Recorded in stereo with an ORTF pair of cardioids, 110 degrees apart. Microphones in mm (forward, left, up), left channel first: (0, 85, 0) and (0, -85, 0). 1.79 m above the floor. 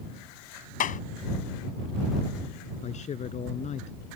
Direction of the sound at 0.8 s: 50° left.